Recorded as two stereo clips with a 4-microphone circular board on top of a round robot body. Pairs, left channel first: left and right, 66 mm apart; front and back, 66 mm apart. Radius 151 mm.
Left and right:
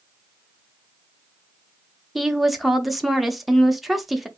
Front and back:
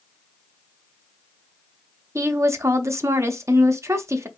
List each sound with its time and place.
2.1 s a woman speaking: 175° right, 1.0 m